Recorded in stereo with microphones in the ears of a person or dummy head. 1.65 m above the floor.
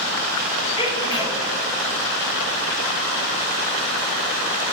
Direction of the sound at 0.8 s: 25° left (ahead or behind).